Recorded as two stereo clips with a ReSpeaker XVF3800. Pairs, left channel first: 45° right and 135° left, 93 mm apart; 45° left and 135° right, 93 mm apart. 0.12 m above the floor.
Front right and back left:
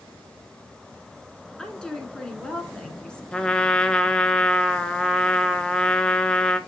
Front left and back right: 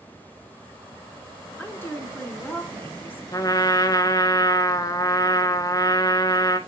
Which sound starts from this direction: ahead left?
A trumpet, at 3.3 s.